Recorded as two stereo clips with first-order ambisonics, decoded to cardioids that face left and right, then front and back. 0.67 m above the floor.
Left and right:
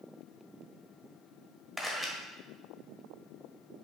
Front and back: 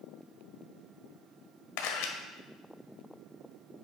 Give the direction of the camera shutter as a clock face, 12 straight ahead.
12 o'clock.